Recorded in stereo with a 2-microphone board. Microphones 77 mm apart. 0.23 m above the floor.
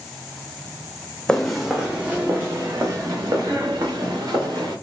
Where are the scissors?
No scissors in this recording.